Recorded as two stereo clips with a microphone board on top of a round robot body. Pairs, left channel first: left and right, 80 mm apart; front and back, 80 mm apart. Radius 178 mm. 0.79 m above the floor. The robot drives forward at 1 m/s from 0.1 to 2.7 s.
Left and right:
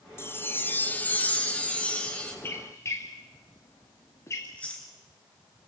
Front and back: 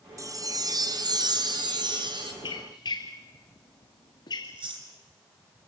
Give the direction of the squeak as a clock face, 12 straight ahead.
11 o'clock.